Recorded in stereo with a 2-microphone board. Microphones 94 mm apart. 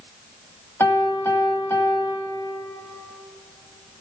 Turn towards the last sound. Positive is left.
turn(degrees=25)  # may be behind; listen again after turning